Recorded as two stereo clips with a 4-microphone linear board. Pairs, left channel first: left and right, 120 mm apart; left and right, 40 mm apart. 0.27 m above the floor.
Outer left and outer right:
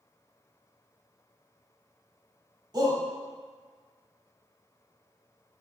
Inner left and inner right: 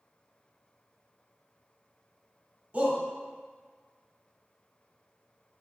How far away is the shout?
About 1.1 m.